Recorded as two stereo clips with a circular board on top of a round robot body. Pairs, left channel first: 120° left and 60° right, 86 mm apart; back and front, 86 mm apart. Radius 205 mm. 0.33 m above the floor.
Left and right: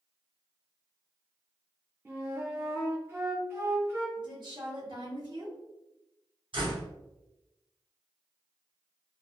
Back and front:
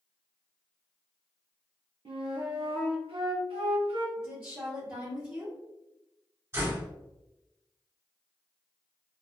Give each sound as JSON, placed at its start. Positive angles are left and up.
{"t": 2.0, "sound": "a flute", "azimuth_deg": 5, "distance_m": 0.6}
{"t": 4.2, "sound": "a woman speaking", "azimuth_deg": -70, "distance_m": 1.7}
{"t": 6.5, "sound": "a door slam", "azimuth_deg": -60, "distance_m": 1.8}